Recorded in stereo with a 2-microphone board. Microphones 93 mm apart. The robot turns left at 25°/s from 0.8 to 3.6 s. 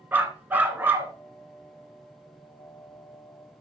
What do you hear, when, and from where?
0.1 s a dog barking: 20° right (ahead or behind), 1.9 m; by 1.1 s 30° right (ahead or behind), 1.9 m